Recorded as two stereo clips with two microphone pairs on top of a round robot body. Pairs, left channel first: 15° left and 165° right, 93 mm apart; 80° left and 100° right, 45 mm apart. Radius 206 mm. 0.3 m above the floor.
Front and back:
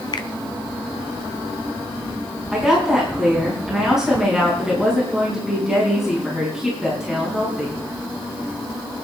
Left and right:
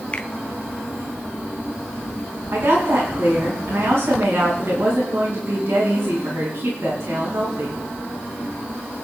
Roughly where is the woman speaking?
Right.